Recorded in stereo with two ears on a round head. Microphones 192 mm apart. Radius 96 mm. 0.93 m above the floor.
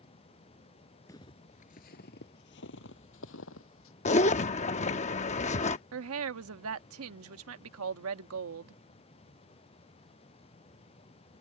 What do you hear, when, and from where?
1.1 s footsteps: 15° left (ahead or behind); by 3.9 s 70° left (ahead or behind)
4.0 s a zipper: 30° left (ahead or behind)
5.9 s a woman speaking: 75° right (ahead or behind)